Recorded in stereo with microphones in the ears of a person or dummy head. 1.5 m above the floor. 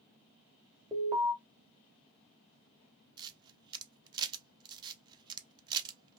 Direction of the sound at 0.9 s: 15° right (ahead or behind).